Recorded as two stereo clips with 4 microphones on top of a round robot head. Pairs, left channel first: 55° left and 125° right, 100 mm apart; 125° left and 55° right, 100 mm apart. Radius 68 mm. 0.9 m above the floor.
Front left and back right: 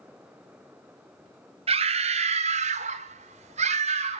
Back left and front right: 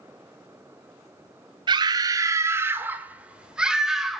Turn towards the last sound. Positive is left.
turn(degrees=-140)